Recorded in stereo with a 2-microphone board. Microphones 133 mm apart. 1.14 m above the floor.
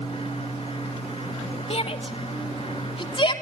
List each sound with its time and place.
1.7 s a shout: 50° left (ahead or behind), 2.5 m; by 3.3 s 40° left (ahead or behind), 3 m